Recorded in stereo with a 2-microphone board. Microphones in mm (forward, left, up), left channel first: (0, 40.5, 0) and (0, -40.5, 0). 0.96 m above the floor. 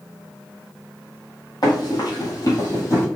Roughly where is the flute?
I don't hear a flute.